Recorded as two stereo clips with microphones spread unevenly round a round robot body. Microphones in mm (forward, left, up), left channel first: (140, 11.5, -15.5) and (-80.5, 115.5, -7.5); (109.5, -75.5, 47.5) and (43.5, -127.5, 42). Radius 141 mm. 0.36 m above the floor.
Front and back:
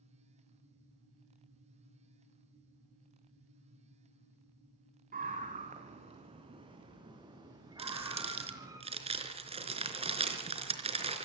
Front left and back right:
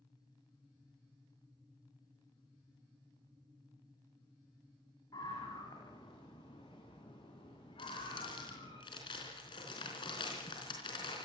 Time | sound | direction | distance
5.1 | a scream | 100° left | 3 m
7.8 | crumpling | 90° left | 3.5 m